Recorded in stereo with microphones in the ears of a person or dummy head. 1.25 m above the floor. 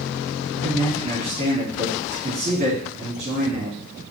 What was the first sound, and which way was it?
A man speaking, 45° right (ahead or behind).